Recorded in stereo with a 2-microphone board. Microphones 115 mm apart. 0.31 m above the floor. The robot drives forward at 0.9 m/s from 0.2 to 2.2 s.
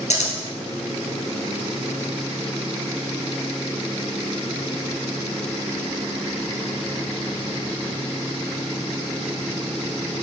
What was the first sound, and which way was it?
Scissors, 90° left.